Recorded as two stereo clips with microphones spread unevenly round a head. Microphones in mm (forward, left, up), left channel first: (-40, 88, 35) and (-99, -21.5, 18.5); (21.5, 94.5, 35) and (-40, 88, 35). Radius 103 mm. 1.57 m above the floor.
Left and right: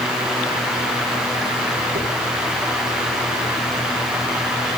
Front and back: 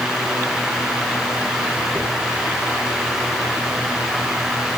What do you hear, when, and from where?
1.9 s a dropped coin: 80° right, 5.5 m